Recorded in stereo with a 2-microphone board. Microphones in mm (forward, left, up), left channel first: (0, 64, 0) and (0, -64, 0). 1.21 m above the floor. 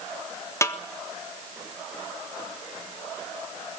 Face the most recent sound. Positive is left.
turn(degrees=25)  # may be behind; listen again after turning